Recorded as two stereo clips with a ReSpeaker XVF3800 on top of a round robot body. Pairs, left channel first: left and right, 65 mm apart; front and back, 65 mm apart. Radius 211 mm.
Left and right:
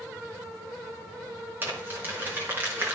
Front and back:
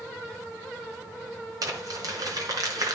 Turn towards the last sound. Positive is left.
turn(degrees=-150)